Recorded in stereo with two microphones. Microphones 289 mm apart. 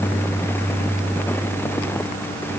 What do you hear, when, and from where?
Only background noise.